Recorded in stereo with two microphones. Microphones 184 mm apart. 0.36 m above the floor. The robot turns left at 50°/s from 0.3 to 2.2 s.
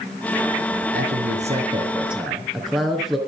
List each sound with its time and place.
0.9 s a man speaking: 115° right, 4 m; by 3.2 s straight behind, 4 m